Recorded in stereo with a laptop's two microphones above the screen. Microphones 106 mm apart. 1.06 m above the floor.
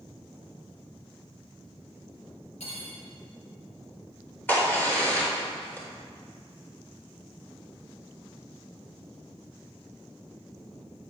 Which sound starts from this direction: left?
Cutlery clinking, at 2.6 s.